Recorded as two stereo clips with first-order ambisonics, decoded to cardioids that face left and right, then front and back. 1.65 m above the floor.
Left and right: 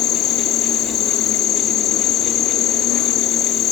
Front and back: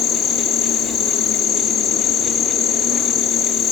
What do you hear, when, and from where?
0.0 s an insect: 40° left, 3 m